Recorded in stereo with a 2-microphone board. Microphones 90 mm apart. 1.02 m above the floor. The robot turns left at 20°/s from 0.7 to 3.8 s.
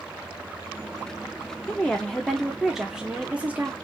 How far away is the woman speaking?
About 0.9 m.